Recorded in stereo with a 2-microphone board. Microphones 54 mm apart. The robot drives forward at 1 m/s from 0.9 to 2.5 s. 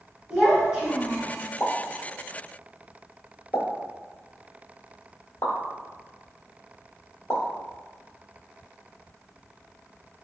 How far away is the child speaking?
About 1.5 m.